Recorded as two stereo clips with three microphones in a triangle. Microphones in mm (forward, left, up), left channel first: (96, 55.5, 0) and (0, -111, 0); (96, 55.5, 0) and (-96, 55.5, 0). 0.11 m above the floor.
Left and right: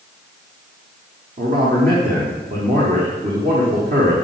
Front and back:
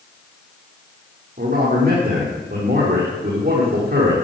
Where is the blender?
I don't hear a blender.